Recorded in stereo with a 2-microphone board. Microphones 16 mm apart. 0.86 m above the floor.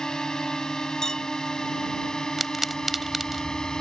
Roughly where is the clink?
Left.